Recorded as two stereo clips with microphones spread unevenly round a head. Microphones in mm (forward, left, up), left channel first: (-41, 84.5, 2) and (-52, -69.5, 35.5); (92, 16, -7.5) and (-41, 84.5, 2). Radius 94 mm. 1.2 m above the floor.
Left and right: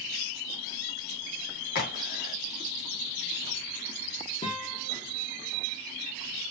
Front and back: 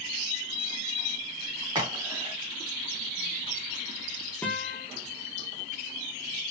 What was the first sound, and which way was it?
A crack, 85° left.